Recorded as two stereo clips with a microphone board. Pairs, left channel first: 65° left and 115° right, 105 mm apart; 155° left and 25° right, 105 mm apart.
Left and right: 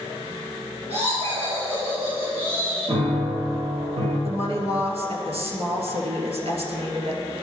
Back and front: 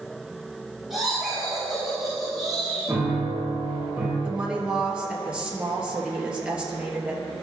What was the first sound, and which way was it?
Laughter, 110° right.